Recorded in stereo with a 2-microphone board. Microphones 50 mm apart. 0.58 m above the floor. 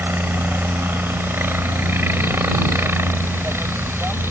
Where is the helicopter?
45° right (ahead or behind); by 4.3 s 55° right (ahead or behind).